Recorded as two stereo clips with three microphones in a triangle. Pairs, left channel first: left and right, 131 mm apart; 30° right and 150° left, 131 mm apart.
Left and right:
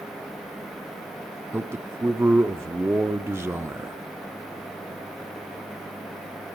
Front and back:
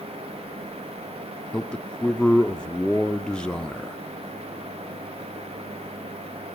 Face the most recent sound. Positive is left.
turn(degrees=-100)